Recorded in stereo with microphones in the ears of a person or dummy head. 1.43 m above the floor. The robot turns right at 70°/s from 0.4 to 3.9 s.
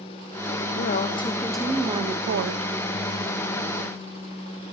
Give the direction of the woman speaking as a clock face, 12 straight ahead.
8 o'clock.